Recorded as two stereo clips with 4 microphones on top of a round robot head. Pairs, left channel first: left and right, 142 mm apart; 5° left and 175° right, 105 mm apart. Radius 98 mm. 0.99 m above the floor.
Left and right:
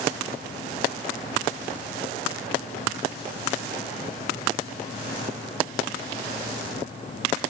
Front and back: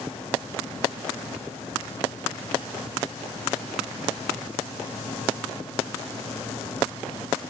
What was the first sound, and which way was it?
Only background noise.